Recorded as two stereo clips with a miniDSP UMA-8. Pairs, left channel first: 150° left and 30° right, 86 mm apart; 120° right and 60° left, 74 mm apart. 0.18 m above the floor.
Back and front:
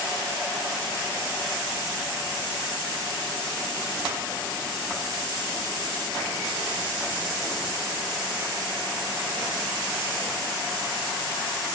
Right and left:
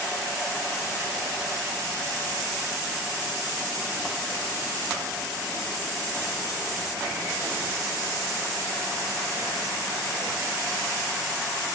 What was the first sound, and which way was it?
Only background noise.